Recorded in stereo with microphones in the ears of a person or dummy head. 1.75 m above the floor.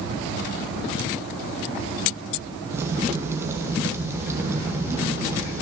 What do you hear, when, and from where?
2.7 s a crack: 20° right (ahead or behind), 1.1 m